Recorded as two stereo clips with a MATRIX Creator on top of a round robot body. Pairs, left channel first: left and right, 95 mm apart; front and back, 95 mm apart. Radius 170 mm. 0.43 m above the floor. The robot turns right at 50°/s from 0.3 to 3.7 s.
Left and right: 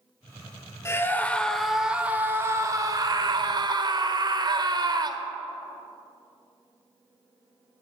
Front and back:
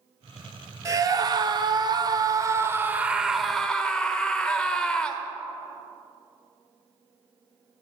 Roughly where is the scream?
Behind left.